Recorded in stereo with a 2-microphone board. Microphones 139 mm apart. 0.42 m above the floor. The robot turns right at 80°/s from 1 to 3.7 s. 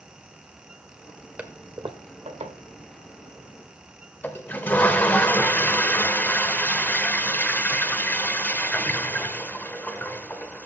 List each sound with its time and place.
1.4 s a toilet flushing: 170° right, 1.0 m; by 10.7 s 15° left, 1.0 m